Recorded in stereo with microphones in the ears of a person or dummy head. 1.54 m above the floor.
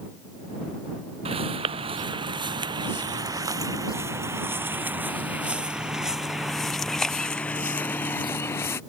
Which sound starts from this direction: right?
Footsteps, at 1.2 s.